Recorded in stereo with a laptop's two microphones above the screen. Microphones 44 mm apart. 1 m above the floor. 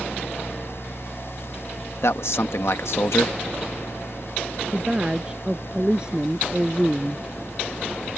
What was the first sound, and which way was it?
A fan, 60° left (ahead or behind).